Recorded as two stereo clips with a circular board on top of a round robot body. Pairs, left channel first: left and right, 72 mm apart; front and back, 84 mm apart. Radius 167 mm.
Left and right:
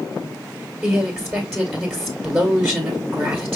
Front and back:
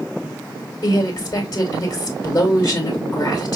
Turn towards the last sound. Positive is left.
turn(degrees=-20)